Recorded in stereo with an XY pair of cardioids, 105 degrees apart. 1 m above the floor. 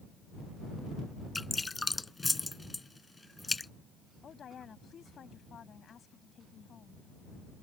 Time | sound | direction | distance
1.4 | dripping | 15° left | ?
4.2 | a woman speaking | 45° left | ?